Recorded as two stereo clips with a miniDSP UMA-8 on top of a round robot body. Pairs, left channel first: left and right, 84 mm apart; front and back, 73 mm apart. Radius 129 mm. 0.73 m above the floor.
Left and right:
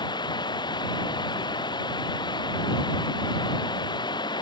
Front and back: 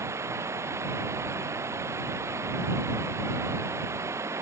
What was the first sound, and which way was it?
Running water, 125° left.